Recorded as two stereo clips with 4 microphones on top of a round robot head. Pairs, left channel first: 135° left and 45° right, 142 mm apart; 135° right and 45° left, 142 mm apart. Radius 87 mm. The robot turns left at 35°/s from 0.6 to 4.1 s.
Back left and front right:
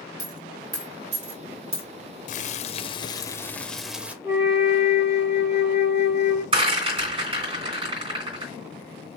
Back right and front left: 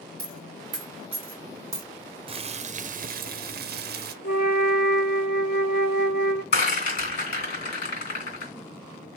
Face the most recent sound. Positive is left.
turn(degrees=-100)